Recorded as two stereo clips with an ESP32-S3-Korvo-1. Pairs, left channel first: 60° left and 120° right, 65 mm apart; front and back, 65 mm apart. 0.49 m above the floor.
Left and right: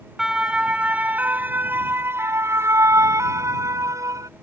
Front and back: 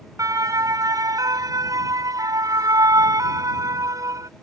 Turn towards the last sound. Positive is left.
turn(degrees=-150)